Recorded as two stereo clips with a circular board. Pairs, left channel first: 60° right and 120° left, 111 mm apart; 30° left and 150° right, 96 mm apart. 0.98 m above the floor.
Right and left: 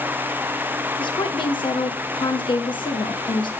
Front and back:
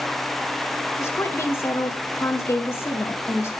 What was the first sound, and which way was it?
A woman speaking, 30° right.